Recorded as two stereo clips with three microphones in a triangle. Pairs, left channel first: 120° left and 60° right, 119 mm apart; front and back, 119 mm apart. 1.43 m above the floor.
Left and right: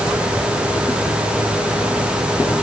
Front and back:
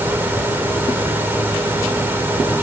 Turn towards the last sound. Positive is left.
No sound to turn to.